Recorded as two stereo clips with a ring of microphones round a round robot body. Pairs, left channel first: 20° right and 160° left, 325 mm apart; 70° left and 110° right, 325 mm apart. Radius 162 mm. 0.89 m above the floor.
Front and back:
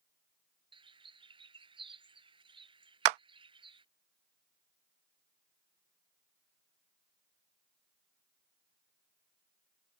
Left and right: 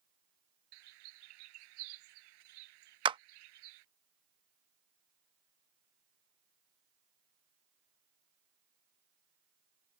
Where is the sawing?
I don't hear sawing.